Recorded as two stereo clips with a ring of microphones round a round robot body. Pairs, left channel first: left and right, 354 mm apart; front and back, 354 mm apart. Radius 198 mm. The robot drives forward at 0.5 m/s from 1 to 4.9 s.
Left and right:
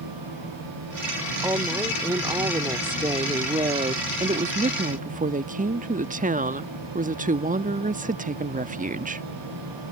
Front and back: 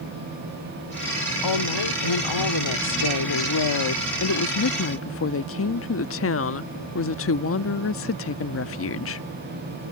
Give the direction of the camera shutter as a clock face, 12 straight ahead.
I don't hear a camera shutter.